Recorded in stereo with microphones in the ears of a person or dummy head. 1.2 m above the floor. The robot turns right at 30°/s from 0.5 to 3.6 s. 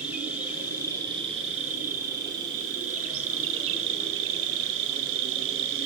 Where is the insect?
170° right, 0.8 m; by 5.9 s 75° right, 0.8 m.